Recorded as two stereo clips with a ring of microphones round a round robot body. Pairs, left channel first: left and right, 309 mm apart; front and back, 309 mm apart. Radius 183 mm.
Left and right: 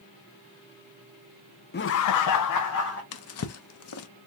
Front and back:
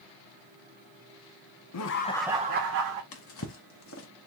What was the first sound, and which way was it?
Laughter, 30° left.